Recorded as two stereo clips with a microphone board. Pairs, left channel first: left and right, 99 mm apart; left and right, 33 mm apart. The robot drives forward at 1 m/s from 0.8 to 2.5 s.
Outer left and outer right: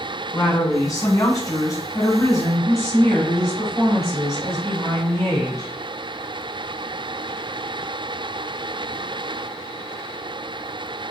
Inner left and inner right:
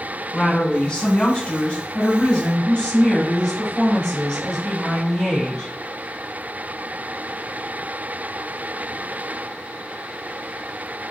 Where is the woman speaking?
30° left (ahead or behind), 1.8 m.